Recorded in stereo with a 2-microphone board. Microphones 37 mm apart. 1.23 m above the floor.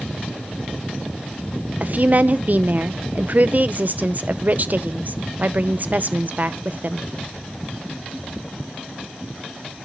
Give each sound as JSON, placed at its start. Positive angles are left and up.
{"t": 1.8, "sound": "a woman speaking", "side_deg": -45, "distance_m": 0.8}